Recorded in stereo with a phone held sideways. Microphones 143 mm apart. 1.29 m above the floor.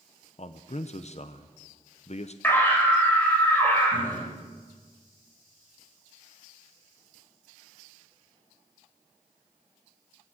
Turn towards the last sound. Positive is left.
turn(degrees=15)  # may be behind; listen again after turning